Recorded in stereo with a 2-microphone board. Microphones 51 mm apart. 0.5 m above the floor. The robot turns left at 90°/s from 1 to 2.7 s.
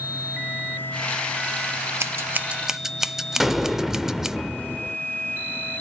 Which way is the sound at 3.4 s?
5° right (ahead or behind).